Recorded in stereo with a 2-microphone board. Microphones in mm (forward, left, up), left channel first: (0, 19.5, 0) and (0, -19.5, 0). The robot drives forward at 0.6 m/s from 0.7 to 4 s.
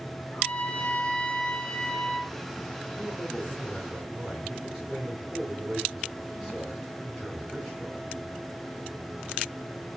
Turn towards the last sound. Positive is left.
turn(degrees=0)  # may be behind; listen again after turning